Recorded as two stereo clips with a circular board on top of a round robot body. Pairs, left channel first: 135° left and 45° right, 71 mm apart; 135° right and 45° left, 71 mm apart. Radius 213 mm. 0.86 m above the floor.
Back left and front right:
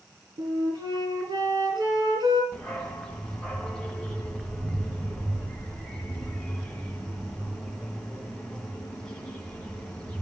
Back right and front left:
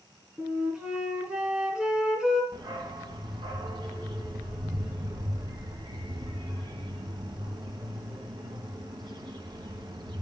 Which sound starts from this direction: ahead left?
A dog barking, at 2.5 s.